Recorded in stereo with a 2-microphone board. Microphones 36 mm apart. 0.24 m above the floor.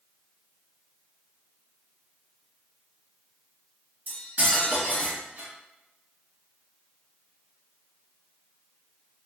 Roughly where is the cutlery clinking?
Right.